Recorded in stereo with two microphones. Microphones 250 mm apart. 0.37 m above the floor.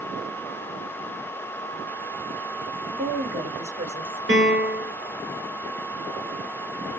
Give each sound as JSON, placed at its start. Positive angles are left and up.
{"t": 2.9, "sound": "a woman speaking", "side_deg": -35, "distance_m": 2.5}
{"t": 4.3, "sound": "a piano", "side_deg": -50, "distance_m": 1.9}